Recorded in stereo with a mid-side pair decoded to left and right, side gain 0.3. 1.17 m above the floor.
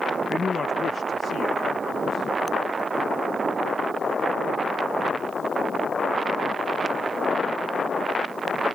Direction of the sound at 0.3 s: 40° left.